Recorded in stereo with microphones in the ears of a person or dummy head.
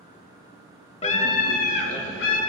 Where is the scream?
35° left (ahead or behind), 0.8 m; by 2.4 s 70° left (ahead or behind), 1.3 m.